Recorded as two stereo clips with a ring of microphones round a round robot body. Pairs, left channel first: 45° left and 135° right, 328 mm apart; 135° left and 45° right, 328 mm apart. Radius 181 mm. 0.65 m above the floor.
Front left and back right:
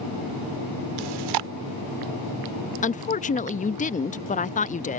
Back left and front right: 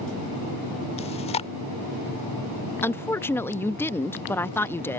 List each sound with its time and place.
1.0 s chewing: 150° right
2.8 s a woman speaking: 60° left